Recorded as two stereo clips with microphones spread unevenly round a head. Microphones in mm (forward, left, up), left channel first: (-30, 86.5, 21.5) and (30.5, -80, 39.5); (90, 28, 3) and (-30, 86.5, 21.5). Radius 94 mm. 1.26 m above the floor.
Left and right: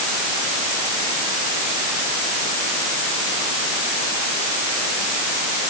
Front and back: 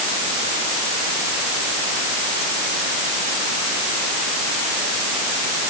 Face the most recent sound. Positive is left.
No sound to turn to.